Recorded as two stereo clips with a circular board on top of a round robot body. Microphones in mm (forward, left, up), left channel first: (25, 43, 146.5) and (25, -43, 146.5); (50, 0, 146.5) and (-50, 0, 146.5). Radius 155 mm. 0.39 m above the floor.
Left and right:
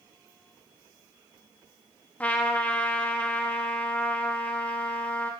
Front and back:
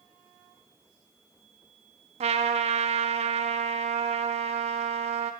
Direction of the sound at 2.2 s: 165° left.